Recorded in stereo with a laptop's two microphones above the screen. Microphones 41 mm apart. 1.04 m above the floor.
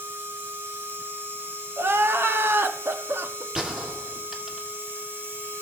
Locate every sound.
0.0 s a machine running: 70° right (ahead or behind), 1.7 m
1.8 s crying: 70° right (ahead or behind), 0.8 m
3.5 s a gunshot: 25° right (ahead or behind), 1.9 m